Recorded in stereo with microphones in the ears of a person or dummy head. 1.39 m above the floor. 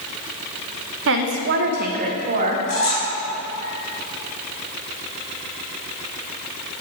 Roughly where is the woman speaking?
Right.